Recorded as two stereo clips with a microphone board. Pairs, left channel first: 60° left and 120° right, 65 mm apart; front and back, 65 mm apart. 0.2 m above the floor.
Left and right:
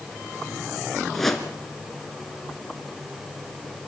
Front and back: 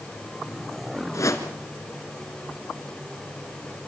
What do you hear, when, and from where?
1.1 s a whoosh: 25° right, 1.9 m